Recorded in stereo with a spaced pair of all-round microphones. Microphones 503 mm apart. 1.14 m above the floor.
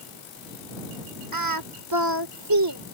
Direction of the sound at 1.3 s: 45° right (ahead or behind).